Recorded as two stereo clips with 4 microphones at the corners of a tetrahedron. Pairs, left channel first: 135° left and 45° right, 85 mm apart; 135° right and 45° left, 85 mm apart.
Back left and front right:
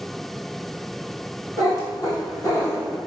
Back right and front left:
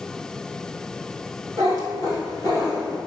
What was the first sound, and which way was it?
A cat meowing, straight behind.